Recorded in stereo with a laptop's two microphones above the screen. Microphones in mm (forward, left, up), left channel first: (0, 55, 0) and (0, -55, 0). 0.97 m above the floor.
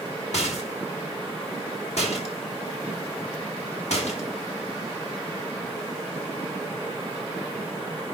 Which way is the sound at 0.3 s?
75° left (ahead or behind).